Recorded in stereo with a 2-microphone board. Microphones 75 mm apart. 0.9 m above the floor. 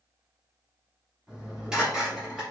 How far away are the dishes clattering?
About 1.0 m.